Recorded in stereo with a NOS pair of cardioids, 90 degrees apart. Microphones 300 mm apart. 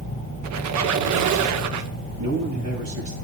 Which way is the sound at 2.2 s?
65° right.